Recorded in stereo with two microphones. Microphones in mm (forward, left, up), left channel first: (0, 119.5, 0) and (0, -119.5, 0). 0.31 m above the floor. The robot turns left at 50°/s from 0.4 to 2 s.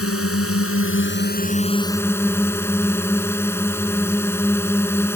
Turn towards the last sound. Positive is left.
turn(degrees=10)